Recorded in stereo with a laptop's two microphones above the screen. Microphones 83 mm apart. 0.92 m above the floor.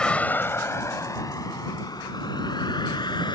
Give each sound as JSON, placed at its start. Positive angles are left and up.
{"t": 0.0, "sound": "a vehicle", "side_deg": 10}